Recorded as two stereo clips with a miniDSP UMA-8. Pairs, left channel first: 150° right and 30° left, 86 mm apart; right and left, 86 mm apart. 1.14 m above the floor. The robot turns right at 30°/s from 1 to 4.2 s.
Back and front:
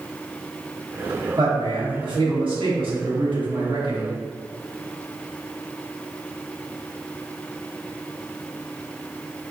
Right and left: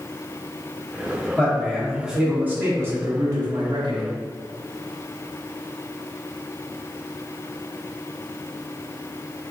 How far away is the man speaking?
About 1.1 m.